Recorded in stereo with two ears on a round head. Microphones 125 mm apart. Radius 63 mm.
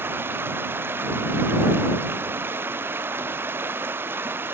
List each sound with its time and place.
0.0 s running water: 15° right (ahead or behind)